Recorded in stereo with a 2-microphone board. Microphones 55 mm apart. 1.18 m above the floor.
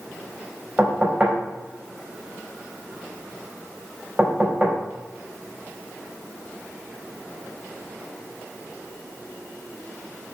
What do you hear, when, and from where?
0.8 s knocking: 25° right (ahead or behind), 5 m